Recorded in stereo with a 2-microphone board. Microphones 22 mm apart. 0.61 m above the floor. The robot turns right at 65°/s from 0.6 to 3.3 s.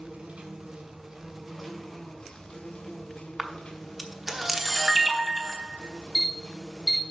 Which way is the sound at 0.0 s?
65° right.